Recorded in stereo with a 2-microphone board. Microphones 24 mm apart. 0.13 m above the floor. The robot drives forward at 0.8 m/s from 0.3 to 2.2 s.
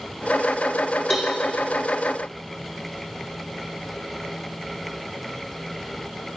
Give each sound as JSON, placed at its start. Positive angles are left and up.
{"t": 1.1, "sound": "a cowbell", "side_deg": 5, "distance_m": 2.5}